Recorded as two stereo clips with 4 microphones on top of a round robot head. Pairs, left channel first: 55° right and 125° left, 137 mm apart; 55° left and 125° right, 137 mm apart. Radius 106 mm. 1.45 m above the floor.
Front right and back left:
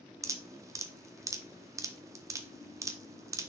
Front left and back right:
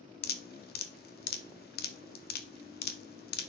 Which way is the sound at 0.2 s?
55° left.